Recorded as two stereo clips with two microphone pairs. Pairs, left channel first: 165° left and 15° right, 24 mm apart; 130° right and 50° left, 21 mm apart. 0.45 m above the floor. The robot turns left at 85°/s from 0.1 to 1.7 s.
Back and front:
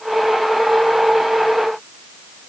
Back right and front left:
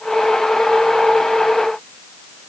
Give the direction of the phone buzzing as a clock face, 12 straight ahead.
I don't hear a phone buzzing.